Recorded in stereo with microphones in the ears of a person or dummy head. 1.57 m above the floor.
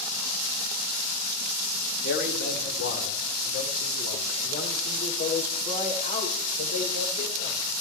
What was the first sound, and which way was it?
A man speaking, 60° left (ahead or behind).